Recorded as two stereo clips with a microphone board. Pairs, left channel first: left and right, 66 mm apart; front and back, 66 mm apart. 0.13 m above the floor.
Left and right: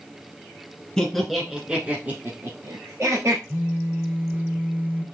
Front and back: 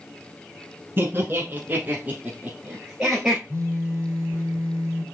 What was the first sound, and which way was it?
Laughter, 165° left.